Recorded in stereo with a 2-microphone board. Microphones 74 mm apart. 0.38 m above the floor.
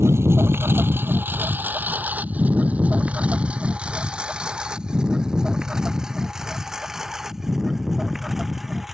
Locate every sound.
0.0 s a lawn mower: 35° right (ahead or behind); by 8.9 s centre (ahead or behind)